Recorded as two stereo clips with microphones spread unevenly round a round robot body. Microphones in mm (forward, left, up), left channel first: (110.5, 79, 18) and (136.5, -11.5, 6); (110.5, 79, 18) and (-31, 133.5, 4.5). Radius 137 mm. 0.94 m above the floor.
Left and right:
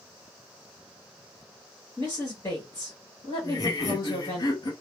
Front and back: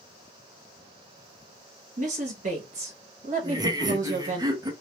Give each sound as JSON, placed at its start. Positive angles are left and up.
{"t": 2.0, "sound": "a woman speaking", "azimuth_deg": 175, "distance_m": 1.1}
{"t": 3.4, "sound": "laughter", "azimuth_deg": 130, "distance_m": 0.6}